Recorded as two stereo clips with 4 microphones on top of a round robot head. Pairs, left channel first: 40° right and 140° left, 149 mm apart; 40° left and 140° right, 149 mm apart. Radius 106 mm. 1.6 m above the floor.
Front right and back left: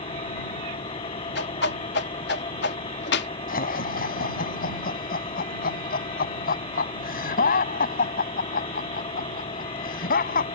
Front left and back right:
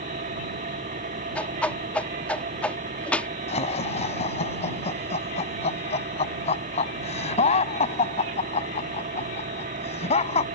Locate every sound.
0.0 s an engine running: 100° right
1.4 s a whoosh: 40° right
3.5 s laughter: 10° right